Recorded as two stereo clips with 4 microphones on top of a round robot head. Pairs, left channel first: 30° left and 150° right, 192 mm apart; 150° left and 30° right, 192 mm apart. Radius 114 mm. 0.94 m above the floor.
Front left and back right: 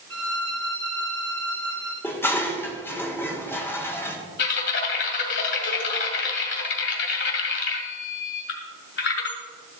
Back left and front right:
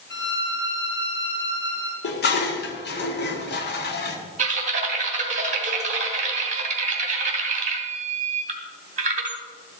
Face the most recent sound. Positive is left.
turn(degrees=15)